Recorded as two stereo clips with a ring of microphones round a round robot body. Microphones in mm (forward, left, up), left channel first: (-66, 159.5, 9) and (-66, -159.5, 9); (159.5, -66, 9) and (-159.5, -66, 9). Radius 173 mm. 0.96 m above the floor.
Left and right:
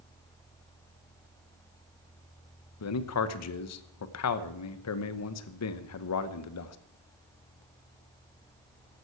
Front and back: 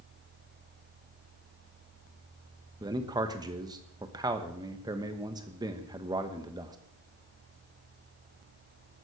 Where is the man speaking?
105° left, 1.0 m.